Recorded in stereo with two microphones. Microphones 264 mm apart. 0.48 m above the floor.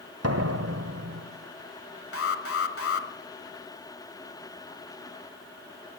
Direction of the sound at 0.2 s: 65° right (ahead or behind).